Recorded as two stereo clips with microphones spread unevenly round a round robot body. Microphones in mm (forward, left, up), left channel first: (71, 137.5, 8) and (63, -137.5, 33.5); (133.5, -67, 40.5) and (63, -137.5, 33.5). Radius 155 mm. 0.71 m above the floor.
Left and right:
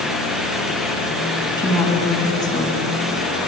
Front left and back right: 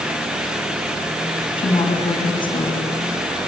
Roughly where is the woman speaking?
Ahead.